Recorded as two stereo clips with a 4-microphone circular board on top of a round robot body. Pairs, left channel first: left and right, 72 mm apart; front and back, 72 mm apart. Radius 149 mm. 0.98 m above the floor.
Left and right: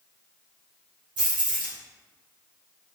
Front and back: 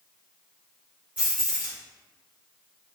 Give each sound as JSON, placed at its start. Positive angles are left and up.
{"t": 1.2, "sound": "keys jangling", "azimuth_deg": -110, "distance_m": 2.0}